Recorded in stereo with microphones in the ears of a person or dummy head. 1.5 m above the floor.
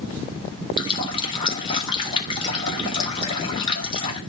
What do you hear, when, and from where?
0.8 s a running tap: 25° left (ahead or behind), 3.5 m